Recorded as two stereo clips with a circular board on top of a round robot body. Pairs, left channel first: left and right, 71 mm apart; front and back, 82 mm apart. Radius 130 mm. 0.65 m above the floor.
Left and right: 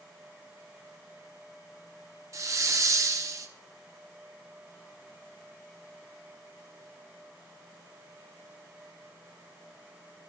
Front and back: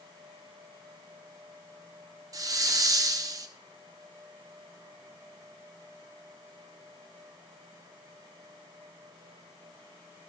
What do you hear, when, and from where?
2.3 s a hiss: 135° right, 1.0 m